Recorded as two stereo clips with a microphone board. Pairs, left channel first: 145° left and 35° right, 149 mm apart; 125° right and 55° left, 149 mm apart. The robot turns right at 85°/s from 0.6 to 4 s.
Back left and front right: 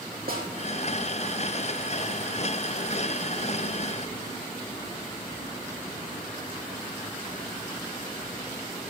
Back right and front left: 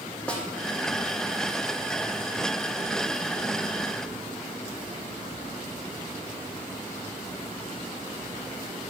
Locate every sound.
0.3 s a snare drum: 40° right, 2 m